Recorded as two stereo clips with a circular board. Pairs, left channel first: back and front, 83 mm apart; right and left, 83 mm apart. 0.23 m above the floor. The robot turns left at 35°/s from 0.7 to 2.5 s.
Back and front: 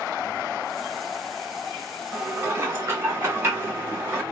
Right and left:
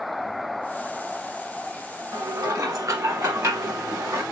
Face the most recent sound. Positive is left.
turn(degrees=50)